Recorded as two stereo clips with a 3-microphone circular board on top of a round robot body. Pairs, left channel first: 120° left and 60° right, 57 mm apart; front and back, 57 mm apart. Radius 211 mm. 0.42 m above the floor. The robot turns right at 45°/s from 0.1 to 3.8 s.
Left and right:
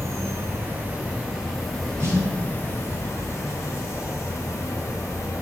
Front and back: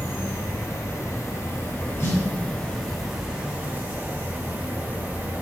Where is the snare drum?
25° right, 2.5 m; by 2.2 s 20° right, 2.5 m.